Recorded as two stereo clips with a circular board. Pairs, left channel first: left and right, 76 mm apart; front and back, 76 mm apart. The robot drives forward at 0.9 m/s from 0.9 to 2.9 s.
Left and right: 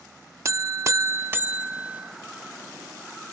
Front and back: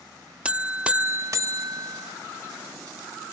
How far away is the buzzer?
About 0.6 m.